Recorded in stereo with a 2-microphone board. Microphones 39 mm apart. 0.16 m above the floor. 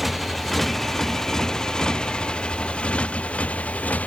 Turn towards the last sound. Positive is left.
turn(degrees=40)  # may be behind; listen again after turning